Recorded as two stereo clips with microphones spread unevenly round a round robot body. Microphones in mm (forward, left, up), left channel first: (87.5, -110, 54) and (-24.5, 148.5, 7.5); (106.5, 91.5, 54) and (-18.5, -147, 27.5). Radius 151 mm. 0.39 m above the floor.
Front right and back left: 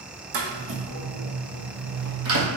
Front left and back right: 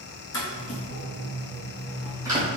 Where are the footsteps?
115° left, 1.5 m; by 2.5 s 165° left, 1.0 m.